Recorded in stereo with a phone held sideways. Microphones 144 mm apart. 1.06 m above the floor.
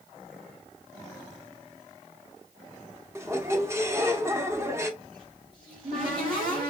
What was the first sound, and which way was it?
A squeak, 20° right (ahead or behind).